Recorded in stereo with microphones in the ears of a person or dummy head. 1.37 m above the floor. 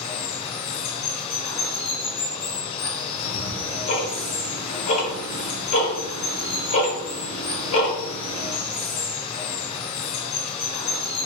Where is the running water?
30° left (ahead or behind), 0.8 m.